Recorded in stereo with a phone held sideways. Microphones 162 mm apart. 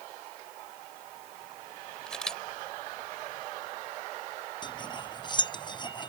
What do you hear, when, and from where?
2.1 s a camera shutter: 5° left (ahead or behind)
4.6 s cutlery clinking: 30° left (ahead or behind)